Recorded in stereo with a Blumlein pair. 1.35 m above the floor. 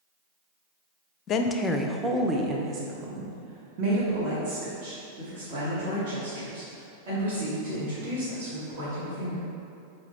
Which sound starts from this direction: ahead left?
A woman speaking, at 1.3 s.